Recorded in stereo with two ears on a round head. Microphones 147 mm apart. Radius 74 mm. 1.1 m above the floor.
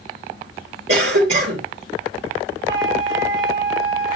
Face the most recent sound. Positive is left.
turn(degrees=-80)